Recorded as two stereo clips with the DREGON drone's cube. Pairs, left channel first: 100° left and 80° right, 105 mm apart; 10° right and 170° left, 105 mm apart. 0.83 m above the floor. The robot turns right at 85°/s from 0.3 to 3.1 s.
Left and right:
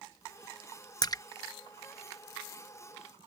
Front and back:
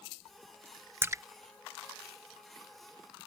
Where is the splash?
110° left; by 1.2 s 130° left.